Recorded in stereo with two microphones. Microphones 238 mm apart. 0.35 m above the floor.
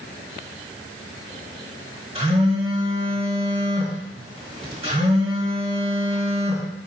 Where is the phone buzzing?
25° right (ahead or behind), 1.6 m.